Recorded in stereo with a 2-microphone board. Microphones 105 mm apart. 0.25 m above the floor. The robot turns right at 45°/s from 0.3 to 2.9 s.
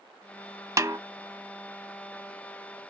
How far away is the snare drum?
About 0.6 m.